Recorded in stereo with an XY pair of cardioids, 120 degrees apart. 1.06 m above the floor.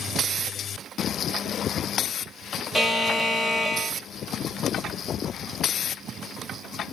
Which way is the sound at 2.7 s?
5° right.